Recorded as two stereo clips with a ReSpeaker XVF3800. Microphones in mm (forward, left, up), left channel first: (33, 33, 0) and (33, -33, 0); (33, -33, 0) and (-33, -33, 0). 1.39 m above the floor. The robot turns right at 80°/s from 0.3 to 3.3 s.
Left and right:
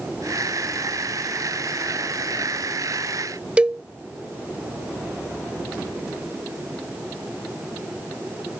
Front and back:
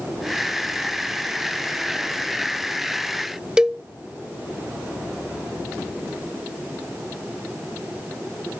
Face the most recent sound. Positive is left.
turn(degrees=-125)